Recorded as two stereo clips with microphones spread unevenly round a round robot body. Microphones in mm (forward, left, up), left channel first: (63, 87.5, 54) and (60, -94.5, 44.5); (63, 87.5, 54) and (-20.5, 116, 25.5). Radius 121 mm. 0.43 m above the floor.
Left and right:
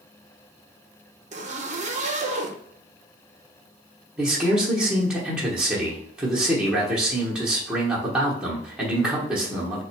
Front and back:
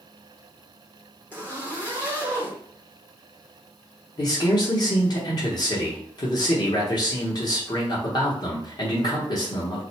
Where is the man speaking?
15° right, 1.0 m.